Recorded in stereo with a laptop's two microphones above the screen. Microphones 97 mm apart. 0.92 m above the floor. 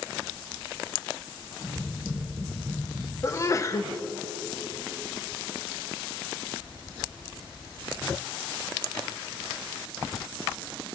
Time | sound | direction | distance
1.6 | tapping | 45° right (ahead or behind) | 2.0 m
3.2 | a sneeze | 30° left (ahead or behind) | 0.5 m